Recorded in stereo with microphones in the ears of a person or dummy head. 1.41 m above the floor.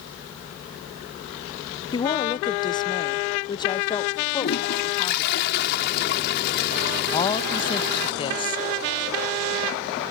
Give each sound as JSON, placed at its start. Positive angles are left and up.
{"t": 1.9, "sound": "a woman speaking", "side_deg": 20}
{"t": 4.4, "sound": "a toilet flushing", "side_deg": 55}
{"t": 7.1, "sound": "a woman speaking", "side_deg": 25}